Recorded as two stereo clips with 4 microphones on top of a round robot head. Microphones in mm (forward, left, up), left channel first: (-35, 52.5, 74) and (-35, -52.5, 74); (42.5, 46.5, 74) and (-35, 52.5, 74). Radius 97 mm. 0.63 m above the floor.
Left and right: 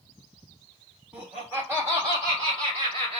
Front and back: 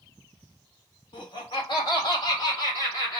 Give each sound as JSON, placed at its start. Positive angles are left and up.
{"t": 1.1, "sound": "laughter", "azimuth_deg": -10, "distance_m": 1.8}